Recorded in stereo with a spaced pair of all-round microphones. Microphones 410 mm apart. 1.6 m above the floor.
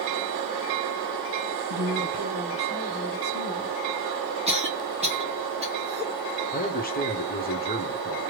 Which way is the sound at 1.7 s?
65° right (ahead or behind).